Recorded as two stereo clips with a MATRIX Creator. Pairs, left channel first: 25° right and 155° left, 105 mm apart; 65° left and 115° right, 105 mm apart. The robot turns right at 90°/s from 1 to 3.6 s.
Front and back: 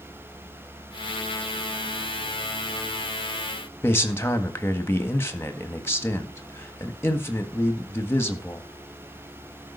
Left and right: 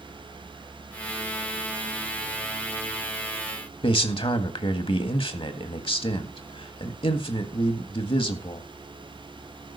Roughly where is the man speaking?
Ahead left.